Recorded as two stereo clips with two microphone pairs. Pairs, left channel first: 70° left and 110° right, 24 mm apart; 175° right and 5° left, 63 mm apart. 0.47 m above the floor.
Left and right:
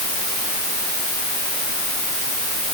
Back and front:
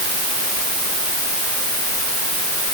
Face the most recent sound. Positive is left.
No sound to turn to.